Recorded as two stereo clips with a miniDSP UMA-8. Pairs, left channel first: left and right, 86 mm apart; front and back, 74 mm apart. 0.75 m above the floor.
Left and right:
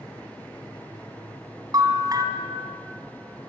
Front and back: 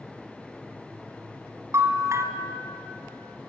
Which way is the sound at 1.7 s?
135° right.